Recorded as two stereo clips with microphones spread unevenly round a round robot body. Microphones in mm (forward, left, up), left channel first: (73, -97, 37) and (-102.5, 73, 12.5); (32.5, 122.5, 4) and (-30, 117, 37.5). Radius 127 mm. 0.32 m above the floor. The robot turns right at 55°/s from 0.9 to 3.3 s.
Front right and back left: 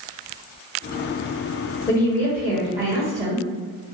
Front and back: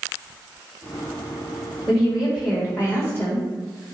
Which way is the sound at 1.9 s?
25° left.